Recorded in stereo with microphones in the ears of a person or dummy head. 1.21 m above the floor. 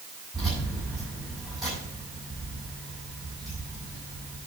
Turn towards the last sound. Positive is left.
turn(degrees=5)  # may be behind; listen again after turning